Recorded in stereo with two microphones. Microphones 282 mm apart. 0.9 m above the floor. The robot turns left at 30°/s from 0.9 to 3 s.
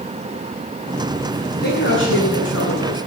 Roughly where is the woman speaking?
Behind left.